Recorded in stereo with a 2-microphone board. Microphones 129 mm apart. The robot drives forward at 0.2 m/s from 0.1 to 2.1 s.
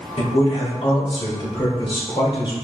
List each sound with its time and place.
0.2 s a man speaking: 50° left (ahead or behind), 1.5 m; by 2.5 s 40° left (ahead or behind), 1.7 m